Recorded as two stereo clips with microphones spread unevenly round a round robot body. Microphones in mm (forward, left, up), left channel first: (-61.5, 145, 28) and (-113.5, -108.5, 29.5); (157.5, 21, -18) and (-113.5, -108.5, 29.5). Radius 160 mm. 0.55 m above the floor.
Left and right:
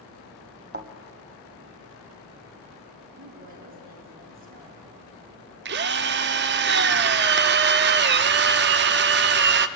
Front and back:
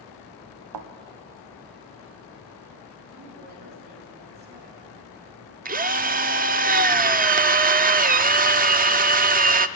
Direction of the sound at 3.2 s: 90° right.